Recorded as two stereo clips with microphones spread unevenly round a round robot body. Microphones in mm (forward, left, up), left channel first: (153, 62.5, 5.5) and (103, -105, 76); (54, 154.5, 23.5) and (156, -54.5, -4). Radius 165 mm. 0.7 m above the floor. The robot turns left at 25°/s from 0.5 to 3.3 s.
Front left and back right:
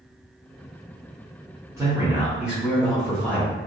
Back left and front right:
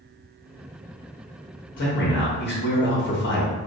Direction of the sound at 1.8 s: 155° left.